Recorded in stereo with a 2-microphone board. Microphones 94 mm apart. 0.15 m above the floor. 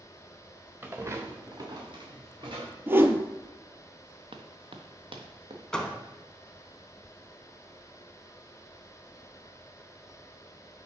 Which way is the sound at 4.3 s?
60° right (ahead or behind).